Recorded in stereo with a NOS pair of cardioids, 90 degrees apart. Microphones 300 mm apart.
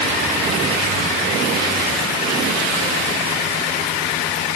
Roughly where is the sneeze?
No sneeze in this recording.